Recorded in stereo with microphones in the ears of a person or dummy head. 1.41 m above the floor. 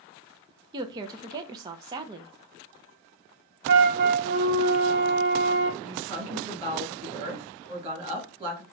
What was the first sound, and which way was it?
A woman speaking, 20° right (ahead or behind).